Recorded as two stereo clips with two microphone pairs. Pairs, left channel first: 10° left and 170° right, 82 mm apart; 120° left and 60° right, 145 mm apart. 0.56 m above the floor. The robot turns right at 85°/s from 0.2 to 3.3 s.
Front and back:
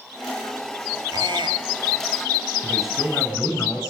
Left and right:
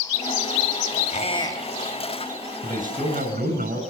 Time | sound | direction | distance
1.1 | a squeak | 155° left | 2.5 m
2.6 | a man speaking | 100° right | 6 m